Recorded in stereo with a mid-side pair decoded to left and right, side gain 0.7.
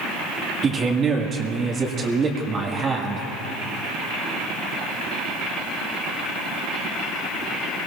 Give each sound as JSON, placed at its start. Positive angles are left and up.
{"t": 0.6, "sound": "a man speaking", "azimuth_deg": -25, "distance_m": 1.7}